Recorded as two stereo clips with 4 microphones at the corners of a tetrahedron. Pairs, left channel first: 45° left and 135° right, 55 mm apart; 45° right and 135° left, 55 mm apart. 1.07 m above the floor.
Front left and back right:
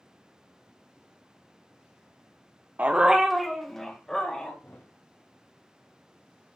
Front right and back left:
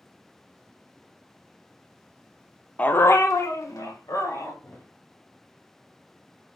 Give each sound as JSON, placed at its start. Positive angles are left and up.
{"t": 2.8, "sound": "a dog barking", "azimuth_deg": -100, "distance_m": 0.6}
{"t": 4.6, "sound": "a thud", "azimuth_deg": 0, "distance_m": 1.9}